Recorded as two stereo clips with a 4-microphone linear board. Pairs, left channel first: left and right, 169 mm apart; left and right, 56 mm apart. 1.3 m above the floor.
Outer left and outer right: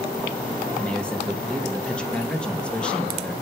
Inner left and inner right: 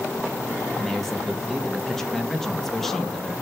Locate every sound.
0.8 s a man speaking: 5° left (ahead or behind), 2.0 m